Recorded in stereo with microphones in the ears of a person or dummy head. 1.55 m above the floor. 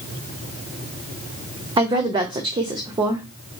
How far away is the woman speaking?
About 0.6 m.